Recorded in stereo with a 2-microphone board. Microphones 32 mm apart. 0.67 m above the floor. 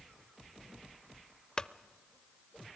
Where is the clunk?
25° left (ahead or behind), 0.6 m.